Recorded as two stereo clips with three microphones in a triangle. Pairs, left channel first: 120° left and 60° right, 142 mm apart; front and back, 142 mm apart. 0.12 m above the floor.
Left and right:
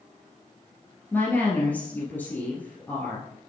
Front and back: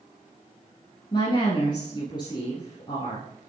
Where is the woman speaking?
45° left, 1.9 m.